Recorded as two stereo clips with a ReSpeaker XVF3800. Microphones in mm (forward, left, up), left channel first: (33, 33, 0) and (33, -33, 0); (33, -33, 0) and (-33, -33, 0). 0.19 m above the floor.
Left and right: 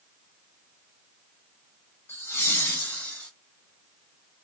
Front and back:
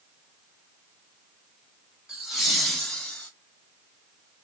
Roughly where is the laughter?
Left.